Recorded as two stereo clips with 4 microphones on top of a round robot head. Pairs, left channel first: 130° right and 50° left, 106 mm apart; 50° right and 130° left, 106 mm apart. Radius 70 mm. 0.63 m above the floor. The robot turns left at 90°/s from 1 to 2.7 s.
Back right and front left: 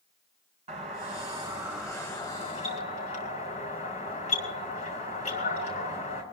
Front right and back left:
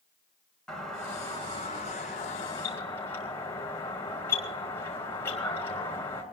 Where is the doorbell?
35° left, 5 m; by 6.2 s 120° right, 5 m.